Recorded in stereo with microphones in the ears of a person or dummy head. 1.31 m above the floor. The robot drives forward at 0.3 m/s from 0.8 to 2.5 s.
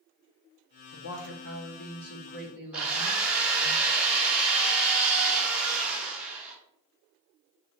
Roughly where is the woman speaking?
Left.